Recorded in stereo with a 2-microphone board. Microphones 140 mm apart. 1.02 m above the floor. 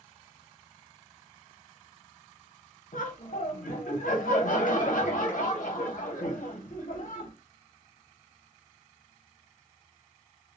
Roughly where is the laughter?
Left.